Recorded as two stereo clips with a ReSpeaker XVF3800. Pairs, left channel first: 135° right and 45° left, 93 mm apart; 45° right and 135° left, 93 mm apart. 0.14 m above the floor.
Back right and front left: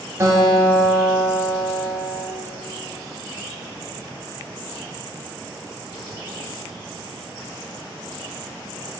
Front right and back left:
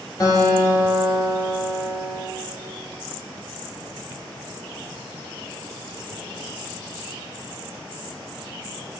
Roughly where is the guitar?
Ahead.